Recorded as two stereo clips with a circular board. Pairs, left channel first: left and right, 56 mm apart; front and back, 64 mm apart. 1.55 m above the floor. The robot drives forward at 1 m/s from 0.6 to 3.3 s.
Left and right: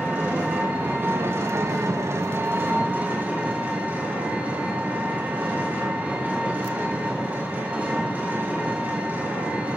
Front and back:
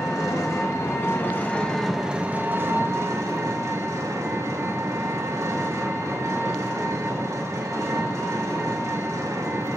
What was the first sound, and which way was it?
An engine running, 30° right.